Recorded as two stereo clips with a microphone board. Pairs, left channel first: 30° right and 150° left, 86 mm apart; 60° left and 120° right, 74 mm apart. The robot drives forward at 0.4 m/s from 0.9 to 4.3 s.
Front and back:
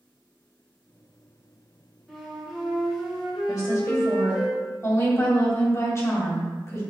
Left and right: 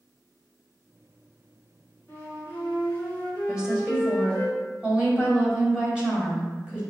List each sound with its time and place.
2.1 s a flute: 45° left, 1.6 m; by 4.5 s 115° left, 1.6 m
3.5 s a woman speaking: 40° right, 1.7 m; by 6.8 s 50° right, 1.5 m